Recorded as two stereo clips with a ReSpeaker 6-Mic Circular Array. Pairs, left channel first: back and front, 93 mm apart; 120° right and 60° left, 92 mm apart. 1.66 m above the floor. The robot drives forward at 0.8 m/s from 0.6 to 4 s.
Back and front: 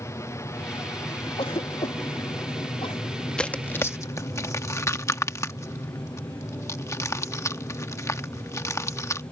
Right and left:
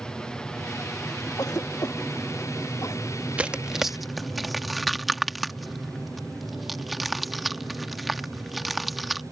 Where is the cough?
170° right; by 3.0 s 175° right.